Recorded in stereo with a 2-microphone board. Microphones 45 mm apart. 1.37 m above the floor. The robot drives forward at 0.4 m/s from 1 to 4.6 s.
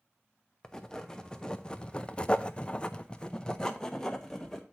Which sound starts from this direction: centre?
Writing, at 0.6 s.